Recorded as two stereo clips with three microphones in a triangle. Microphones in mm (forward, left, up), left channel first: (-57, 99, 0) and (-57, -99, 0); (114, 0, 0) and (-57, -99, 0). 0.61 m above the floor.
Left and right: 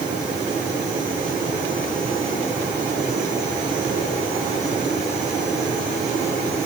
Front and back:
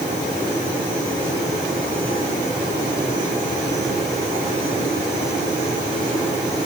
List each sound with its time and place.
Only background noise.